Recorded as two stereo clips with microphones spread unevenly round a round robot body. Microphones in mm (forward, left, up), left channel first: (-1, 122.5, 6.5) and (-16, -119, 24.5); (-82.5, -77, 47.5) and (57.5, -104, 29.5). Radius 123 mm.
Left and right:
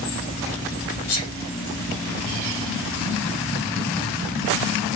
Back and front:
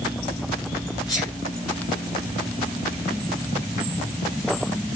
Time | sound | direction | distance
1.1 | a sneeze | 95° left | 2.5 m